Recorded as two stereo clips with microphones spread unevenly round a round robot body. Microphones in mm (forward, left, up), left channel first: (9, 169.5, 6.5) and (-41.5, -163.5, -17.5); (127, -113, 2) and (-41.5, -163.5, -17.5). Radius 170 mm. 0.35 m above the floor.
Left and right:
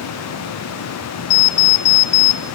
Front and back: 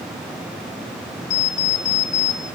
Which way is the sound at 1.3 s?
60° left.